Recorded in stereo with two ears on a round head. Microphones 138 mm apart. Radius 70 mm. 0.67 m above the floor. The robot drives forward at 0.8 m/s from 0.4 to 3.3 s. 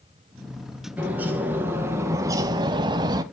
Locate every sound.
1.0 s a bird: 10° right (ahead or behind), 1.6 m; by 3.2 s 25° right (ahead or behind), 0.6 m